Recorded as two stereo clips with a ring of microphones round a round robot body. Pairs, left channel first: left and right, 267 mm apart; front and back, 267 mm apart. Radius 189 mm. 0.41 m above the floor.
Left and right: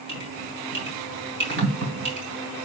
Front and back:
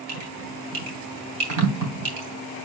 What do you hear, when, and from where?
0.1 s dripping: 145° right, 2.5 m